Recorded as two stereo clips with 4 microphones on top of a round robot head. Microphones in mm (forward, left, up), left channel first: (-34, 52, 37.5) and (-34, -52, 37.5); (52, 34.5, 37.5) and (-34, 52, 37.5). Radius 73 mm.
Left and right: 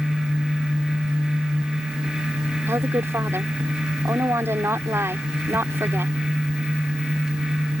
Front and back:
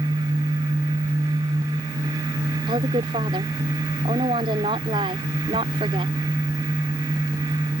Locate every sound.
2.7 s a woman speaking: 155° right